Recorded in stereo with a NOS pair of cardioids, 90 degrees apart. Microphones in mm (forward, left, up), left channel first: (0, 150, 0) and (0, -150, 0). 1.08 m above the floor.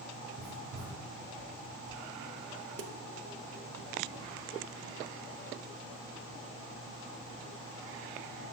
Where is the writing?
65° right, 3.5 m.